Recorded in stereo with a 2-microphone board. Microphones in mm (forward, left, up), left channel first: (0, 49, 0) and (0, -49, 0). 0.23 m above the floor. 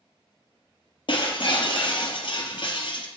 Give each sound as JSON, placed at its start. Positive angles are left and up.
{"t": 1.1, "sound": "breaking glass", "side_deg": 55, "distance_m": 0.9}